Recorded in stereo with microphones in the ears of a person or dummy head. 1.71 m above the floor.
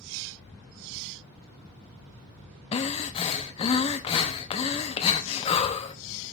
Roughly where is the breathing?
Left.